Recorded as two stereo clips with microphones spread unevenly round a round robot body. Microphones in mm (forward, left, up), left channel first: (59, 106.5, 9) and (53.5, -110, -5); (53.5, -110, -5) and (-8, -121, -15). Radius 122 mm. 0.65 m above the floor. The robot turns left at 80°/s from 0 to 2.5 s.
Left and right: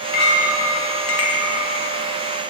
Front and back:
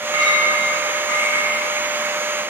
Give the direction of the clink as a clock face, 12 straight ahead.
7 o'clock.